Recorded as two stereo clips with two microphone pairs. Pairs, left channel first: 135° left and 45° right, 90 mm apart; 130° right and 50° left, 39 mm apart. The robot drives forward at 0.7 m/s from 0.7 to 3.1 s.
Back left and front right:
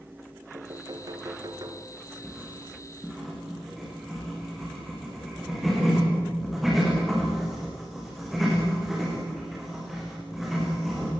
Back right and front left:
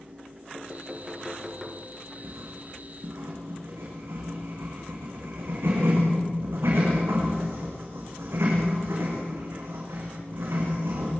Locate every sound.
0.5 s knocking: 15° right, 2 m; by 1.9 s 30° right, 1.6 m
2.2 s writing: 40° left, 8.5 m; by 11.1 s 45° left, 8 m